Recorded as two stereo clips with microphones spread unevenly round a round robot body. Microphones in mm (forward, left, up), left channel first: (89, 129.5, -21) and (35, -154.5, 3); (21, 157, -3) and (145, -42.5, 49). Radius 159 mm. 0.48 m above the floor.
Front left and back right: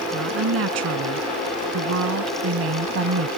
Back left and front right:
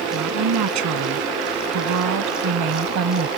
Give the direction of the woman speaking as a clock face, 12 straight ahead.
2 o'clock.